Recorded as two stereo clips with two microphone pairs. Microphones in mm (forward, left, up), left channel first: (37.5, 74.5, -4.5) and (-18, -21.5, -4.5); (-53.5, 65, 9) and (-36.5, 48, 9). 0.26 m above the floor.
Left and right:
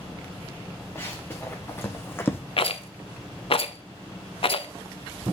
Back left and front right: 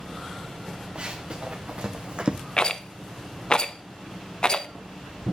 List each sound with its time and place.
0.9 s running footsteps: 5° right, 2 m
2.6 s a rattle: 90° left, 0.6 m